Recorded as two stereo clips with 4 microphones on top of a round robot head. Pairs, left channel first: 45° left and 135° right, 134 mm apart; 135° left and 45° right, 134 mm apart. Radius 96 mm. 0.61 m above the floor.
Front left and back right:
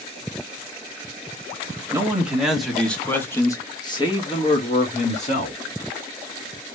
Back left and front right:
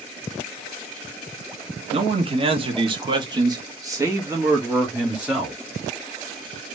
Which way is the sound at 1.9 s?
65° right.